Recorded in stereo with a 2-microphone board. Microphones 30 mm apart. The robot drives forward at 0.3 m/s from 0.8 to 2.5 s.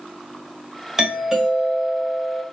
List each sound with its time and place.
1.0 s a doorbell: 10° right (ahead or behind), 1.3 m